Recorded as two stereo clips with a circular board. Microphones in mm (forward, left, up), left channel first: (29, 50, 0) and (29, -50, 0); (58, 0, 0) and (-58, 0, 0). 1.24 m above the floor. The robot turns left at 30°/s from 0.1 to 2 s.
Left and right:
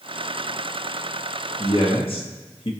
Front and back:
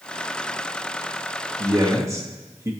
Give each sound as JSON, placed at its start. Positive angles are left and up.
{"t": 1.6, "sound": "a man speaking", "azimuth_deg": 130, "distance_m": 1.6}